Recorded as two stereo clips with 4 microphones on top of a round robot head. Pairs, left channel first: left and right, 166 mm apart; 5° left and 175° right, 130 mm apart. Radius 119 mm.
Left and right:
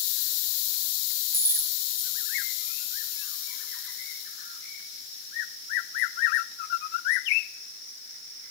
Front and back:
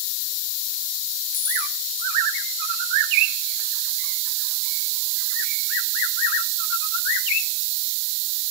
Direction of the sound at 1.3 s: 20° left.